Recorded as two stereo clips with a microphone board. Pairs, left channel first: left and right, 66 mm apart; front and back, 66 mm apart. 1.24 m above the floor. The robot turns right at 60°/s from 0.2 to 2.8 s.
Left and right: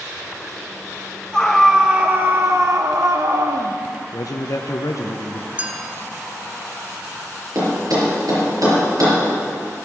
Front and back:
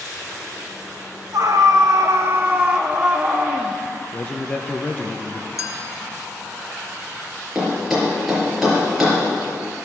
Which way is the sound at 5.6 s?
25° right.